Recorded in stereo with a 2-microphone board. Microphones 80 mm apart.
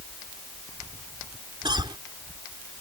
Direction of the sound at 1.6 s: 70° right (ahead or behind).